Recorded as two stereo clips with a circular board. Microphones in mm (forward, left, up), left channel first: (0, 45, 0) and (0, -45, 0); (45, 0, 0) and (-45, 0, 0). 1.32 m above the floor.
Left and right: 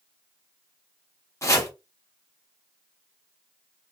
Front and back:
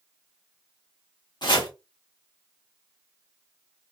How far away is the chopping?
About 1.6 m.